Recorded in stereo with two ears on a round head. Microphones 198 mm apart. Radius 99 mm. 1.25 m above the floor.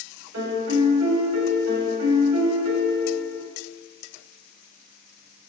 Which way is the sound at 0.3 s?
60° right (ahead or behind).